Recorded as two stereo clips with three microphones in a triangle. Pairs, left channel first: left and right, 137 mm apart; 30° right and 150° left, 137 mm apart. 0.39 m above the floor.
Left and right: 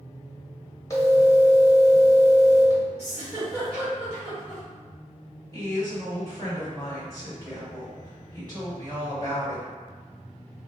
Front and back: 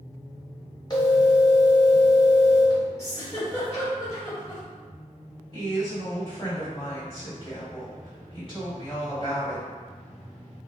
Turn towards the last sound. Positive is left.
turn(degrees=-45)